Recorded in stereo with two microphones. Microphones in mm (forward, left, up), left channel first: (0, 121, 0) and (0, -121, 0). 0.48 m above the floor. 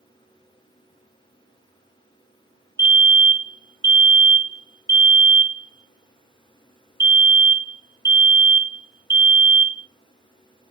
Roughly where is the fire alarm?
Centre.